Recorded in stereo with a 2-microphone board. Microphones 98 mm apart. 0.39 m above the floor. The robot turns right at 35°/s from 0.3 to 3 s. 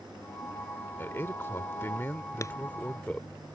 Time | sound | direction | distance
1.0 | a man speaking | 25° left (ahead or behind) | ?
2.4 | a clap | 30° left (ahead or behind) | ?